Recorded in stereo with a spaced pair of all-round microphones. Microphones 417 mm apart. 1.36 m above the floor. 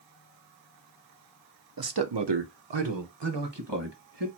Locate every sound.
1.8 s a man speaking: 55° right (ahead or behind), 0.6 m; by 4.3 s 70° right (ahead or behind), 1.6 m